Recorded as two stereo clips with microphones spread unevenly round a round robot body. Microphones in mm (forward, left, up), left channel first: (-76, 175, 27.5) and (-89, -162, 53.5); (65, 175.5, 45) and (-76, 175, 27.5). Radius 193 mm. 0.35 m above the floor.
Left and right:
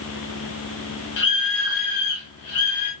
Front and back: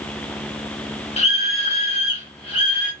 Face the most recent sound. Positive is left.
turn(degrees=50)